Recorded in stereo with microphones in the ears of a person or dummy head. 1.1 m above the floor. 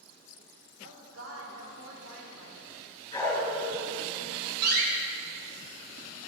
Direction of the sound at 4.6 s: 60° right (ahead or behind).